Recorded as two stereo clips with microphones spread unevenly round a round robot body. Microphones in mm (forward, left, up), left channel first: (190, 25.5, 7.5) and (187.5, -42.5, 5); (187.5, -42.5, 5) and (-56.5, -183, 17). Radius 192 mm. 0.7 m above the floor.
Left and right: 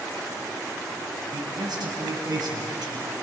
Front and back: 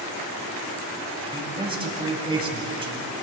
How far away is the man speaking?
About 4 m.